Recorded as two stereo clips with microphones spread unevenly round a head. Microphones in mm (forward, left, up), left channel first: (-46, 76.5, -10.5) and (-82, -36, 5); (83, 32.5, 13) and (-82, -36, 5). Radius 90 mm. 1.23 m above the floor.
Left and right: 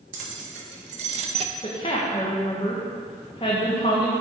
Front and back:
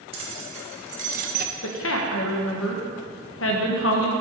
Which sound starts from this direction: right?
Keys jangling, at 0.1 s.